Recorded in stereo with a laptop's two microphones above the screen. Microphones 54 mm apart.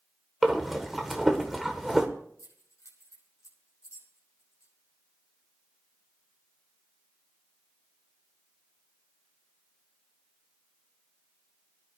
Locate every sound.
0.4 s breathing: 5° right (ahead or behind), 1.1 m
2.4 s keys jangling: 75° left (ahead or behind), 6 m